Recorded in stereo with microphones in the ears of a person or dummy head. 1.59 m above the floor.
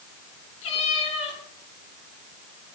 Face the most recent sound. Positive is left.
turn(degrees=40)  # may be behind; listen again after turning